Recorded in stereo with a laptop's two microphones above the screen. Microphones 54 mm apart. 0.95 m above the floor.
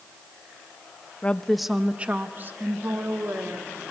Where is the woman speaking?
25° left (ahead or behind), 0.6 m; by 3.8 s 55° right (ahead or behind), 1.9 m.